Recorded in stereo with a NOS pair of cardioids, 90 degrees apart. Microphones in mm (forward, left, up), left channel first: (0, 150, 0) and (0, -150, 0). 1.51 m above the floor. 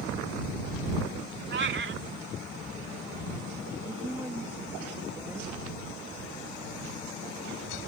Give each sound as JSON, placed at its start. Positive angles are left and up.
{"t": 1.5, "sound": "a cat meowing", "azimuth_deg": -40}
{"t": 3.9, "sound": "a woman speaking", "azimuth_deg": -5}